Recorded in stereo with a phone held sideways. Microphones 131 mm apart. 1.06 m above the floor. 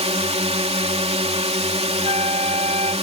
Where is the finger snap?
I don't hear a finger snap.